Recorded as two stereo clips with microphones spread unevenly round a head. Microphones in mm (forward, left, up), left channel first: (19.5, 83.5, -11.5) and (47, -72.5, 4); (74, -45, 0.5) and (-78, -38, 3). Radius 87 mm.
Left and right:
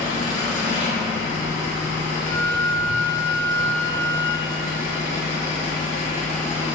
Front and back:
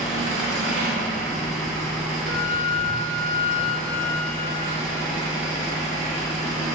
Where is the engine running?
105° left, 2.0 m.